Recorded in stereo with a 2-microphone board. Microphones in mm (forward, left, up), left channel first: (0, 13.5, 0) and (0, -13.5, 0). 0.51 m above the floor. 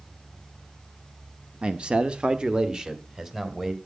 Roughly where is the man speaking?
Right.